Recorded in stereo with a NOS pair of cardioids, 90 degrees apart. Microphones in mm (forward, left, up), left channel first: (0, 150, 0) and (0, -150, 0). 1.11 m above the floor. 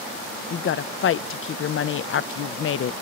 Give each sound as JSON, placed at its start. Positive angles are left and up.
{"t": 0.5, "sound": "a woman speaking", "azimuth_deg": 45, "distance_m": 0.5}